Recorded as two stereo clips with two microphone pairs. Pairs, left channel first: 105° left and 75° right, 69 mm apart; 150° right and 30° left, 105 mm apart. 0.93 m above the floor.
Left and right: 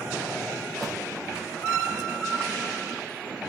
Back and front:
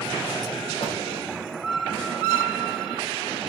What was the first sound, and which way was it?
A door slam, 165° right.